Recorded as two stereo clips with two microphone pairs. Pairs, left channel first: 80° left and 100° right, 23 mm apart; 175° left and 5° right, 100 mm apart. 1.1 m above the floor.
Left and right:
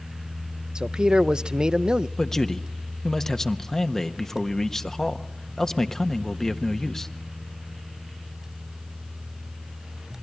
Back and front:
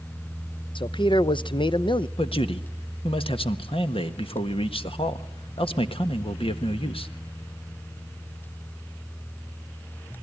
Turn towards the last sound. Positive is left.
turn(degrees=150)